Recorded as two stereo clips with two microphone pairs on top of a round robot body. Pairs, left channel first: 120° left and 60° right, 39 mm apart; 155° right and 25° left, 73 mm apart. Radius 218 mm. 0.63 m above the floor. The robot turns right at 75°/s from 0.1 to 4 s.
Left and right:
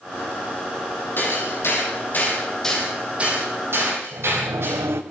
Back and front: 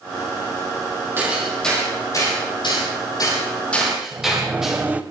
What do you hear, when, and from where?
1.2 s hammering: 90° left, 9 m; by 4.8 s 60° right, 9 m
4.1 s a sliding door: 45° right, 1.2 m